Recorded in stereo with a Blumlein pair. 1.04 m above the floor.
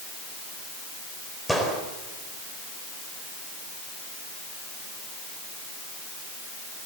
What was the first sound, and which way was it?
A gunshot, straight ahead.